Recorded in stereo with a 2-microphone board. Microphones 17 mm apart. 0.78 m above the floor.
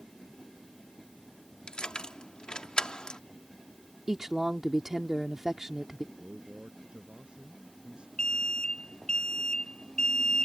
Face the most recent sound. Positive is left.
turn(degrees=45)  # may be behind; listen again after turning